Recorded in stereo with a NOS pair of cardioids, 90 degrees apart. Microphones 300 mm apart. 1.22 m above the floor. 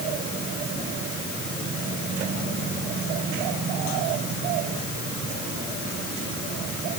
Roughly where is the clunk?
No clunk in this recording.